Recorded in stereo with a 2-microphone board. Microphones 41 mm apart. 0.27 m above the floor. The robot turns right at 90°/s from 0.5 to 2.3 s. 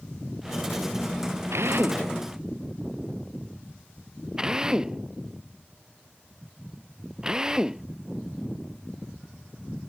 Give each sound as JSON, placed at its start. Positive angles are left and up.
{"t": 1.5, "sound": "a drill", "side_deg": -85}